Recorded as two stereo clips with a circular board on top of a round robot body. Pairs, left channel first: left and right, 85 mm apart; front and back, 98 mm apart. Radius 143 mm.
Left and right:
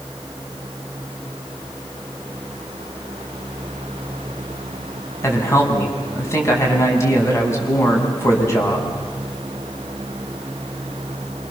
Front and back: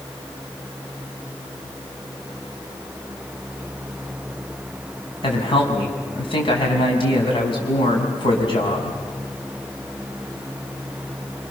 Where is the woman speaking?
35° left, 5.5 m.